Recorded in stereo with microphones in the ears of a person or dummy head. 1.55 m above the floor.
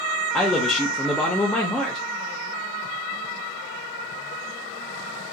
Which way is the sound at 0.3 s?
5° left (ahead or behind).